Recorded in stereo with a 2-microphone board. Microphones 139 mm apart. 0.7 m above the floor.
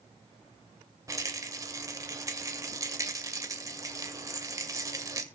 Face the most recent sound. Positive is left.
turn(degrees=-25)  # may be behind; listen again after turning